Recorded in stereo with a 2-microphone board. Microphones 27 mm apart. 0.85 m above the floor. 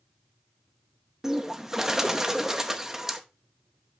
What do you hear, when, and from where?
1.2 s a bird: 15° right (ahead or behind), 0.9 m